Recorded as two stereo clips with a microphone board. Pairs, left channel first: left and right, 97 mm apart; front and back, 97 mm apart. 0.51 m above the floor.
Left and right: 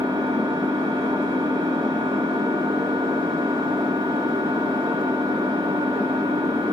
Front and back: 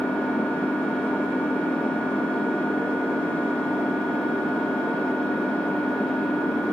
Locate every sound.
0.0 s an engine running: 80° right, 3.5 m